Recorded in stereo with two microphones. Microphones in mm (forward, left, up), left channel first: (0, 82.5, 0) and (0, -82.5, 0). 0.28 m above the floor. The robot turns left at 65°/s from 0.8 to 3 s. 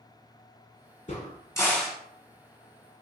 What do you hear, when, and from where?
1.1 s a crack: 50° left (ahead or behind), 1.0 m; by 2.0 s 5° right (ahead or behind), 1.0 m